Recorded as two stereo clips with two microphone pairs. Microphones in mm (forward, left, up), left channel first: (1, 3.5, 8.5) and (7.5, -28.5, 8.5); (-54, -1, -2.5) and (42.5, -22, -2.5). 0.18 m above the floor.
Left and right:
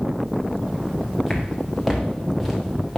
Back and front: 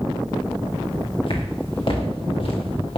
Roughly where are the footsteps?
Behind.